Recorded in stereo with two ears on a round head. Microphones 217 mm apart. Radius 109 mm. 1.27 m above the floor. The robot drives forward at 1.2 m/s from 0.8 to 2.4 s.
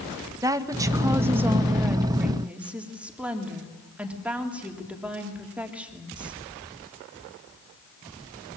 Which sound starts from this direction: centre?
A woman speaking, at 0.4 s.